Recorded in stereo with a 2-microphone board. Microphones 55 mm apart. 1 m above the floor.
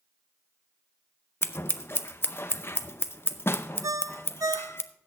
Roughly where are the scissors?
Left.